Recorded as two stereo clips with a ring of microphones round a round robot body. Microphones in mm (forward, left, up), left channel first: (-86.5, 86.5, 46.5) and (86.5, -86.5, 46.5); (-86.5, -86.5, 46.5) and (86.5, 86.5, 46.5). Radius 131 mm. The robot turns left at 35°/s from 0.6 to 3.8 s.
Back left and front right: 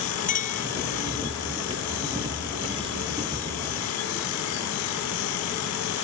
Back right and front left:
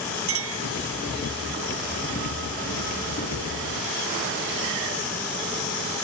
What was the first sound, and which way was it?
A clink, 75° left.